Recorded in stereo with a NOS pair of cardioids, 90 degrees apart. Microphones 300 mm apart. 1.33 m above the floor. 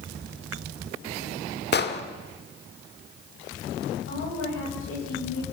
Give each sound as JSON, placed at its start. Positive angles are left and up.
{"t": 1.7, "sound": "an explosion", "azimuth_deg": 40, "distance_m": 2.0}
{"t": 4.1, "sound": "a woman speaking", "azimuth_deg": 45, "distance_m": 8.0}